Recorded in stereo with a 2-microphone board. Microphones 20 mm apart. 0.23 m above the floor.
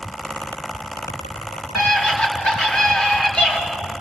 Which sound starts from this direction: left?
A scream, at 1.8 s.